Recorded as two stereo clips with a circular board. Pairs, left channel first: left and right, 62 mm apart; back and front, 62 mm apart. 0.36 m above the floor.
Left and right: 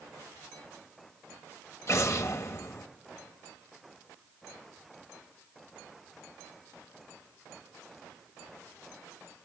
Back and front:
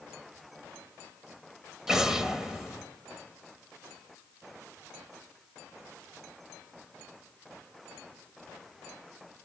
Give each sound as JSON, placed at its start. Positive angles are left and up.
{"t": 1.9, "sound": "an explosion", "azimuth_deg": 80, "distance_m": 1.0}